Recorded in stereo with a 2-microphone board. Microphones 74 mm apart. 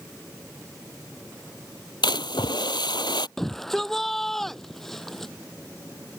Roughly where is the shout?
Centre.